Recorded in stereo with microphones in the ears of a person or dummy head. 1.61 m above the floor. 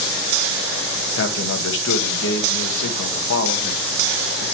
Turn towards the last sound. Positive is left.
turn(degrees=65)  # may be behind; listen again after turning